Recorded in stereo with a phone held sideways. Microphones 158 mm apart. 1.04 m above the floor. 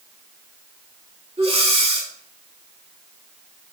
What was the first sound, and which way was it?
Breathing, 40° right (ahead or behind).